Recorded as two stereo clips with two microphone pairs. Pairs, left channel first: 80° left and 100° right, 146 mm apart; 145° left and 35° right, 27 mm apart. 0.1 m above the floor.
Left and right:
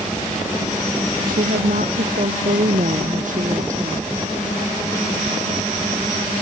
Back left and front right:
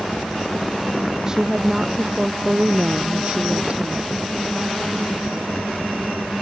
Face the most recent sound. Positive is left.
turn(degrees=-70)